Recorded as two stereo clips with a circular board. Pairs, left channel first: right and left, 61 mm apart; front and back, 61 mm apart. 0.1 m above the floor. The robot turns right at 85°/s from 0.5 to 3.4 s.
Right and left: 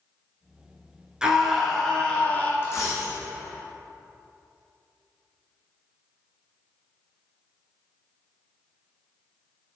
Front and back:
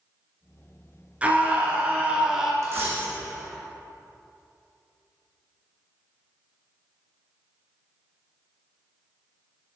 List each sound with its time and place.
1.2 s a scream: 150° left, 1.5 m; by 2.5 s 100° right, 1.5 m
2.6 s a dropped coin: 145° right, 2 m; by 3.2 s 95° right, 2 m